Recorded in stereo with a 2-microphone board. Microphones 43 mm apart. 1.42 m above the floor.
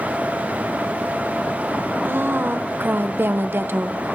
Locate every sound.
2.0 s a woman speaking: 60° right (ahead or behind), 0.7 m